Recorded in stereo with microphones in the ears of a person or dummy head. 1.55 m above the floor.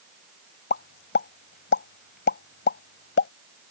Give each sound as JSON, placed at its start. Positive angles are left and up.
{"t": 0.7, "sound": "a pop", "side_deg": 65}